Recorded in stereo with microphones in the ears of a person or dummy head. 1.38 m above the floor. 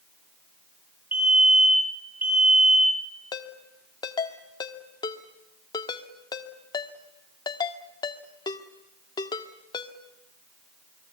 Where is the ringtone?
25° left (ahead or behind), 1.6 m.